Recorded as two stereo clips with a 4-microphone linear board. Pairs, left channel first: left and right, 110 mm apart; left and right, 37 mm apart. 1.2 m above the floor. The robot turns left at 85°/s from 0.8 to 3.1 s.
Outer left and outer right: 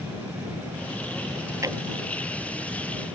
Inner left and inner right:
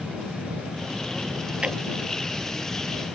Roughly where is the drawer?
Right.